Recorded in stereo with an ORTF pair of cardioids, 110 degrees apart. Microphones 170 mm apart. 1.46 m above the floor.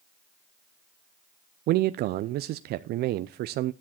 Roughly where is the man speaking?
Right.